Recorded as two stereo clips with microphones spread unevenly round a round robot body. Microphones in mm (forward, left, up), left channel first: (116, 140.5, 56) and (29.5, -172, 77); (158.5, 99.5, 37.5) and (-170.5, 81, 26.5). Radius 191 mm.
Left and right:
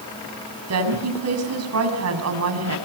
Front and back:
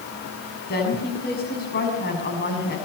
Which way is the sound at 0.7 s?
65° right.